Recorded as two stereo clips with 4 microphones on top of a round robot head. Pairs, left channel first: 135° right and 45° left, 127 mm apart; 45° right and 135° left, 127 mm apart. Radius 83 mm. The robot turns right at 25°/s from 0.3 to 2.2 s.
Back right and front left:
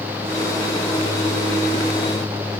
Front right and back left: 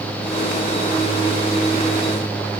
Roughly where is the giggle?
No giggle in this recording.